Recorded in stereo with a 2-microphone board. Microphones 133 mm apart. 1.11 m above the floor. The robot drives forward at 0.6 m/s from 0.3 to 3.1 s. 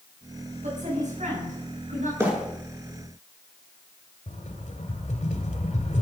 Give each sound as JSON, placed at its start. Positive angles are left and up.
{"t": 0.6, "sound": "a woman speaking", "side_deg": -65, "distance_m": 9.0}
{"t": 2.2, "sound": "a bird", "side_deg": -20, "distance_m": 6.5}
{"t": 4.3, "sound": "a rattle", "side_deg": 65, "distance_m": 2.5}